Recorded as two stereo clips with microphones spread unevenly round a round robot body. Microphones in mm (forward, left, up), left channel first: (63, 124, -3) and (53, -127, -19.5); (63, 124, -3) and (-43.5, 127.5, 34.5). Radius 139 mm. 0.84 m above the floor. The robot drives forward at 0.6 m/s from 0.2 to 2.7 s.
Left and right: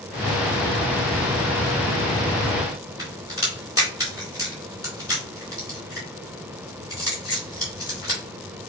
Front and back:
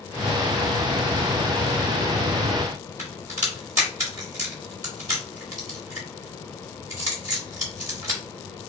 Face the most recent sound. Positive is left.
turn(degrees=-170)